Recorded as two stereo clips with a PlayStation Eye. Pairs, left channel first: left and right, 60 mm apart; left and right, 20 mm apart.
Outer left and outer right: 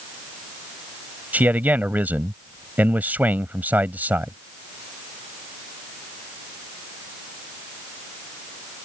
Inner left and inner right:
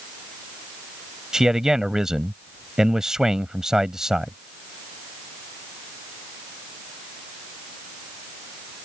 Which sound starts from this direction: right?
A man speaking, at 1.3 s.